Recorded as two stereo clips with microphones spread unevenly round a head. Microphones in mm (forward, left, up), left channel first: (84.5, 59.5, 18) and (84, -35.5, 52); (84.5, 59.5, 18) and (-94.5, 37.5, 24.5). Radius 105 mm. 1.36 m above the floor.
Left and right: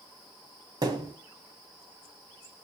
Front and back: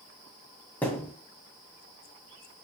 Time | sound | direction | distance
0.8 | a thud | 75° right | 2 m